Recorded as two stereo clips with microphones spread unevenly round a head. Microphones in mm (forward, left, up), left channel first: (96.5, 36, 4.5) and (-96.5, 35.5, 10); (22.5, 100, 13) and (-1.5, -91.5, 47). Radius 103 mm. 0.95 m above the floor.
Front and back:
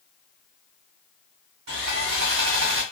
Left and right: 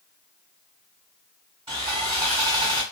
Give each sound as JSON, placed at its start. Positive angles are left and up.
{"t": 1.7, "sound": "sawing", "azimuth_deg": -160, "distance_m": 1.7}